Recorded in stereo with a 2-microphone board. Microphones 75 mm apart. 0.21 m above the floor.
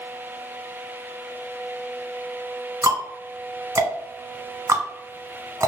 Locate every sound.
2.8 s ticking: 40° right (ahead or behind), 0.9 m